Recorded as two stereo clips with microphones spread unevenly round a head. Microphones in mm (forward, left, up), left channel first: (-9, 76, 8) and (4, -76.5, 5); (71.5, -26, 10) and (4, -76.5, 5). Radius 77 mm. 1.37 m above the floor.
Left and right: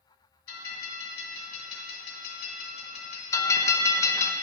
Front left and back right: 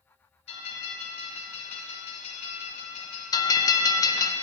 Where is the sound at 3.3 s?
30° left, 0.6 m.